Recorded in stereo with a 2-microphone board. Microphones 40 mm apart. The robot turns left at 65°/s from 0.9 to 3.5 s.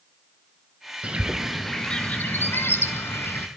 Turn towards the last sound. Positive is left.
turn(degrees=55)